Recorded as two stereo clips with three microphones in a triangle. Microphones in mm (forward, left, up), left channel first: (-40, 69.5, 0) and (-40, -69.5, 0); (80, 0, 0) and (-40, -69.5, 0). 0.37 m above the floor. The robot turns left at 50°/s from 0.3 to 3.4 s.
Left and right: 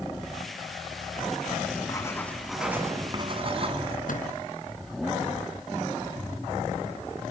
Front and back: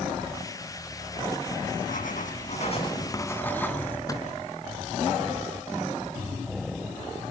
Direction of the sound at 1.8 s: 35° left.